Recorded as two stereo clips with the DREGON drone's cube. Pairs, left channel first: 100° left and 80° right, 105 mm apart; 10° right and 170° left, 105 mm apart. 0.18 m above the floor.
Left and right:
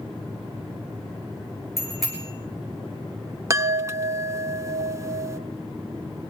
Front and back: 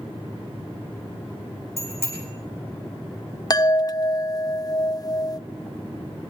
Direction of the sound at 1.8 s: 165° right.